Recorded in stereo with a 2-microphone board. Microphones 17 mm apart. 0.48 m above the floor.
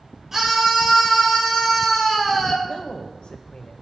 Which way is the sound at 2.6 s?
60° left (ahead or behind).